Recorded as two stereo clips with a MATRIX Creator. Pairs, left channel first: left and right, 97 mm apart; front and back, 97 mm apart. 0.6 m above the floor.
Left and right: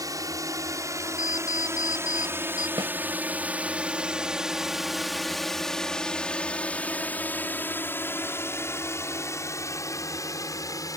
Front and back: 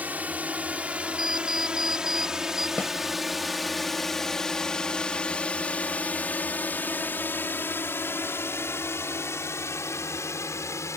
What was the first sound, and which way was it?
A drone, 115° right.